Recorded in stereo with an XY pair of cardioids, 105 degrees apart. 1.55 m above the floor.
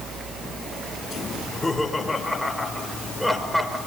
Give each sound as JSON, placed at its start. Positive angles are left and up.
{"t": 1.4, "sound": "laughter", "azimuth_deg": 20, "distance_m": 5.0}